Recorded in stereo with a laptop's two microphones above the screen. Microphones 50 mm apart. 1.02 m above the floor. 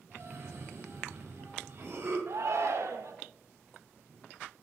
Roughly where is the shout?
Right.